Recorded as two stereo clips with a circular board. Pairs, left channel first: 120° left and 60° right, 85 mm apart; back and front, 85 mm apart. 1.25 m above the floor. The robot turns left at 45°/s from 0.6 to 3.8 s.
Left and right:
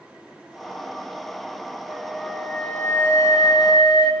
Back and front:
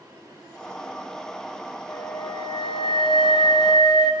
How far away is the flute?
About 10 m.